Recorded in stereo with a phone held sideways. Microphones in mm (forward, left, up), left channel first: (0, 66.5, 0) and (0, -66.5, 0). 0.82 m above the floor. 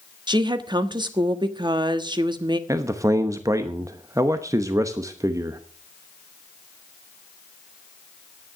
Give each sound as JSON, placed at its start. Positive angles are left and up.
{"t": 0.3, "sound": "a woman speaking", "side_deg": -35, "distance_m": 1.2}
{"t": 2.7, "sound": "a man speaking", "side_deg": -25, "distance_m": 0.8}